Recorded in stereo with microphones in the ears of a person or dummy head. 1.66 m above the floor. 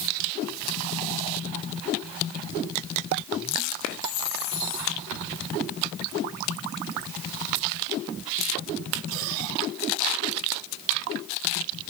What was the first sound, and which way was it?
Only background noise.